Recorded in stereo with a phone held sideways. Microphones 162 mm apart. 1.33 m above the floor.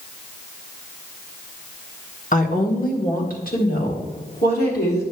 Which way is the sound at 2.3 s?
50° left (ahead or behind).